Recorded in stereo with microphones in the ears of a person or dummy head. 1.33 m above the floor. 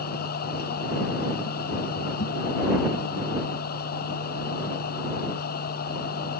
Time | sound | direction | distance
0.0 | a machine running | 50° left (ahead or behind) | ?